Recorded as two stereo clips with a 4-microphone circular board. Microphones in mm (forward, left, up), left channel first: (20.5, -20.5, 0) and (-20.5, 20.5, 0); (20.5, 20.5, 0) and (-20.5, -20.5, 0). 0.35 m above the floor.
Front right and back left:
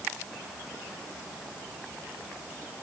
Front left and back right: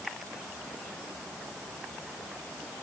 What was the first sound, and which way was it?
Only background noise.